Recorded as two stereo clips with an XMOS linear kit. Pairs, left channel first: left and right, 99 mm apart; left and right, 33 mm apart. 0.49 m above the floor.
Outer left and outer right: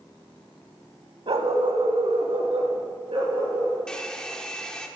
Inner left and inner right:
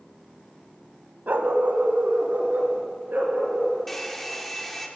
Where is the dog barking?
65° right (ahead or behind), 0.7 m.